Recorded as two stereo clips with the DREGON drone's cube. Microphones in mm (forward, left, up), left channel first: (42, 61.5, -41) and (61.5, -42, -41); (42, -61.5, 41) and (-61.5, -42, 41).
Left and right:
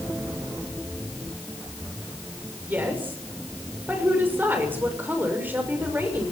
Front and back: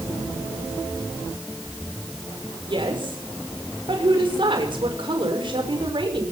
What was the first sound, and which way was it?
A woman speaking, 150° right.